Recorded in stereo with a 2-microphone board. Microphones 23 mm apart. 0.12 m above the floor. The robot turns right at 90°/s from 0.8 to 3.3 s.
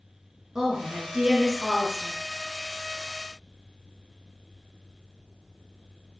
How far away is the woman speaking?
About 1.2 m.